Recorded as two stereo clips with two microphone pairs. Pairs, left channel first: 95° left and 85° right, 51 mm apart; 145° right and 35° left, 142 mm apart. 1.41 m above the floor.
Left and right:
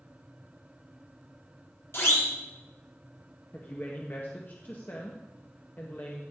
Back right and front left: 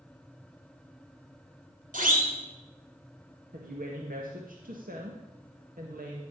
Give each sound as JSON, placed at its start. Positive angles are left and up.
{"t": 1.9, "sound": "a siren", "azimuth_deg": 60, "distance_m": 3.5}
{"t": 3.5, "sound": "a woman speaking", "azimuth_deg": 45, "distance_m": 1.8}